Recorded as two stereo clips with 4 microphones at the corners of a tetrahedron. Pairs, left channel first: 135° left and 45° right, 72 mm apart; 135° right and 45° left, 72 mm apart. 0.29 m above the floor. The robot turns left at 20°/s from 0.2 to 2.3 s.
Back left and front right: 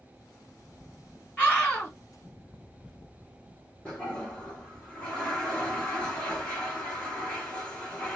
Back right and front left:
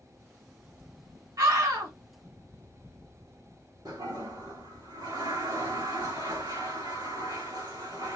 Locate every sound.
1.4 s a scream: 65° left, 2 m; by 1.9 s 55° left, 2 m
3.9 s a toilet flushing: 55° left, 3.5 m